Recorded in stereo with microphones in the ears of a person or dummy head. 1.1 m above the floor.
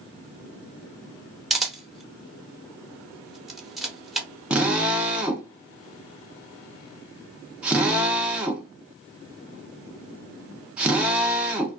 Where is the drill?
10° right (ahead or behind), 0.5 m.